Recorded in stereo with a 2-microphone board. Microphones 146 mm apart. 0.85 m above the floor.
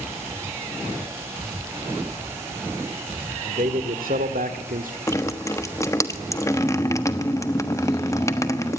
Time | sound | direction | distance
3.4 | a man speaking | 65° right (ahead or behind) | 2 m
5.1 | dripping | 20° left (ahead or behind) | 1.2 m